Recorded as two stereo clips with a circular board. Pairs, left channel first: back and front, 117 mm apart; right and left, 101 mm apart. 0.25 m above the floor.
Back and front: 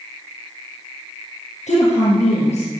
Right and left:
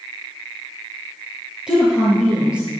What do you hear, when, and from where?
1.7 s a woman speaking: 170° left, 5 m